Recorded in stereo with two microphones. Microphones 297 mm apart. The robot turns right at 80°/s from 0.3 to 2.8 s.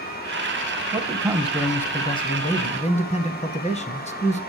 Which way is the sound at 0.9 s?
20° right (ahead or behind).